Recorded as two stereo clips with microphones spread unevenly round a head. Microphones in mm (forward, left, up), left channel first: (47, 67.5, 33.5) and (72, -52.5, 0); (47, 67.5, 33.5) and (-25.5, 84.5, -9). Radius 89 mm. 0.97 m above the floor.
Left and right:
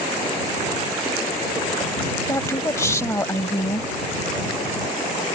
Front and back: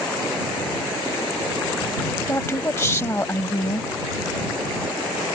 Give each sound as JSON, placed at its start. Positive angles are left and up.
{"t": 2.3, "sound": "a woman speaking", "azimuth_deg": 35}